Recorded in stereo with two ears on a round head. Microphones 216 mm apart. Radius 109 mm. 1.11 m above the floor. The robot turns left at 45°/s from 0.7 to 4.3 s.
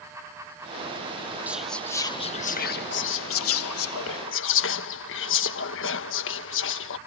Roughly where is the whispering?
Behind.